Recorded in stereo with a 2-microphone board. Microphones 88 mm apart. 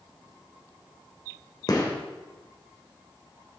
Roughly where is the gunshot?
Left.